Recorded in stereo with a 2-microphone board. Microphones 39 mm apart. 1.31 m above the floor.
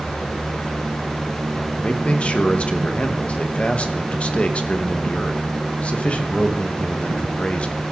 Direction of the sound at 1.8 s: 35° left (ahead or behind).